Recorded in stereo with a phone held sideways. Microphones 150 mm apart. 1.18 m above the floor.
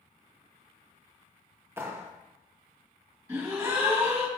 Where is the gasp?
15° right (ahead or behind), 1.2 m.